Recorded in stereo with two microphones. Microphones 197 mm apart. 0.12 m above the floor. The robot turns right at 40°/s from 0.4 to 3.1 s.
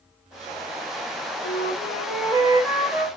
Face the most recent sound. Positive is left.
turn(degrees=-165)